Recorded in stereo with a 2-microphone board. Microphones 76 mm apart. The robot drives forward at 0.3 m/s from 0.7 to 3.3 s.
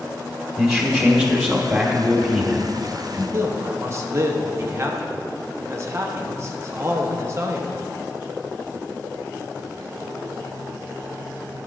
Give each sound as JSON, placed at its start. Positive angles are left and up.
{"t": 0.6, "sound": "a man speaking", "side_deg": 0, "distance_m": 1.1}
{"t": 3.3, "sound": "a man speaking", "side_deg": -35, "distance_m": 0.9}